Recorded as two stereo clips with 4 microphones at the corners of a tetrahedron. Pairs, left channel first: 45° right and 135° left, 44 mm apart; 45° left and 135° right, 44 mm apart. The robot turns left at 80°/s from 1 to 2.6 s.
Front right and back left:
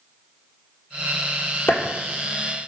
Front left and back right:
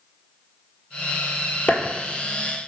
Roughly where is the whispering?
No whispering in this recording.